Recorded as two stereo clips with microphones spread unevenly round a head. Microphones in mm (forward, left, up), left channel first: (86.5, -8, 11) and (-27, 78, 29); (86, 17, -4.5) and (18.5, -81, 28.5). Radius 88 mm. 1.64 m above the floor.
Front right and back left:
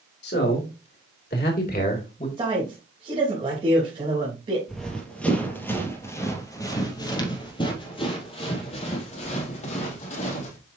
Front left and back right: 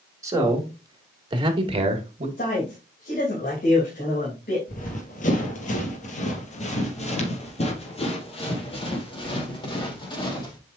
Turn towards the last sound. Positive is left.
turn(degrees=0)